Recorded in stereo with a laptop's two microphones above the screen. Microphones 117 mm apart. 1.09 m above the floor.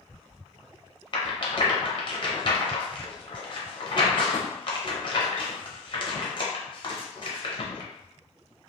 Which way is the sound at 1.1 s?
45° left (ahead or behind).